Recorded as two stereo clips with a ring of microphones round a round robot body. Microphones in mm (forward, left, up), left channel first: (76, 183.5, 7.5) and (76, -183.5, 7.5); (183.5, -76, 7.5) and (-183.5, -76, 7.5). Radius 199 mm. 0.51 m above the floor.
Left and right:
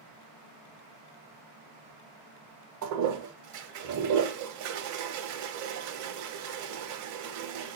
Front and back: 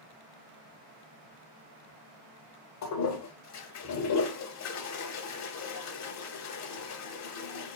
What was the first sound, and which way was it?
A toilet flushing, 45° right.